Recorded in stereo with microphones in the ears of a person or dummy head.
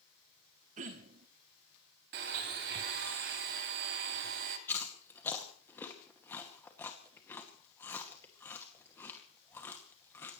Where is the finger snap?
No finger snap in this recording.